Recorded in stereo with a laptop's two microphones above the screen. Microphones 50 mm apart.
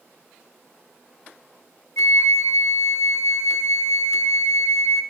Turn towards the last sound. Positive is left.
turn(degrees=70)  # may be behind; listen again after turning